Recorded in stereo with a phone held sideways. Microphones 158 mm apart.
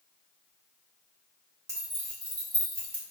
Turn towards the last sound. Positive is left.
turn(degrees=-40)  # may be behind; listen again after turning